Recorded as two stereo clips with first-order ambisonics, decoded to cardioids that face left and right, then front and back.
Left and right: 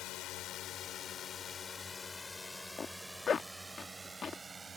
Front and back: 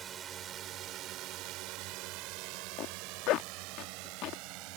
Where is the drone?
120° left; by 4.8 s 165° right.